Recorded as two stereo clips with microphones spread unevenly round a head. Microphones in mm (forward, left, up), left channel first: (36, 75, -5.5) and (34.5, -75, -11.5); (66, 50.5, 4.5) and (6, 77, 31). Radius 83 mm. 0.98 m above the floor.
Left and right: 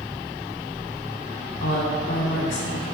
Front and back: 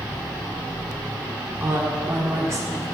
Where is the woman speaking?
100° left, 2.5 m; by 2.8 s 115° left, 1.8 m.